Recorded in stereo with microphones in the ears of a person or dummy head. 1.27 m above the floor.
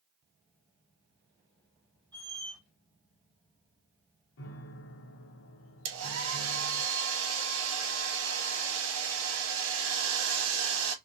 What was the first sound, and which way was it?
A squeak, 10° left (ahead or behind).